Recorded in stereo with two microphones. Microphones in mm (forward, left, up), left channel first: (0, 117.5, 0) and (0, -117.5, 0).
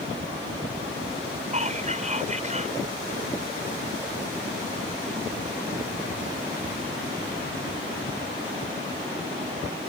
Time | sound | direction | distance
1.5 | whispering | 30° right (ahead or behind) | ?